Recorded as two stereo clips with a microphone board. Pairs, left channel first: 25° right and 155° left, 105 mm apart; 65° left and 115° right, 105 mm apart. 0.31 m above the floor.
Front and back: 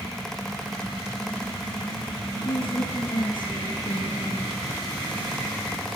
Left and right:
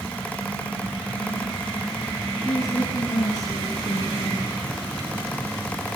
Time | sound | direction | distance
2.5 | a woman speaking | 5° left | 5 m